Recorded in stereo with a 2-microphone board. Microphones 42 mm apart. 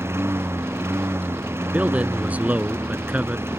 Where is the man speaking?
40° right (ahead or behind).